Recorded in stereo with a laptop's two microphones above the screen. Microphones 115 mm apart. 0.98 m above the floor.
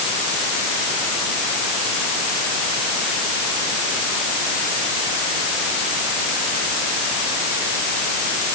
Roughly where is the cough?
No cough in this recording.